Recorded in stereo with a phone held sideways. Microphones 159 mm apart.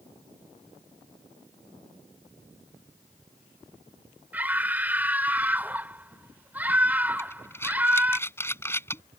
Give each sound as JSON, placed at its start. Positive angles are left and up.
{"t": 4.3, "sound": "a scream", "side_deg": -10}
{"t": 7.2, "sound": "breathing", "side_deg": 15}